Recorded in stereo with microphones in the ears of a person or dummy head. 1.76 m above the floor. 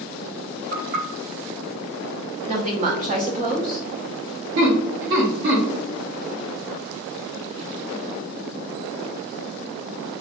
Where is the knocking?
55° right (ahead or behind), 1.8 m.